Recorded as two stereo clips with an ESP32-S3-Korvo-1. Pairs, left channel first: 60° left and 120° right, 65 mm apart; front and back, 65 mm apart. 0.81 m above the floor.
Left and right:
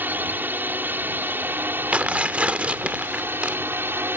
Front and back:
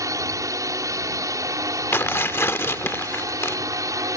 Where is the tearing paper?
50° right.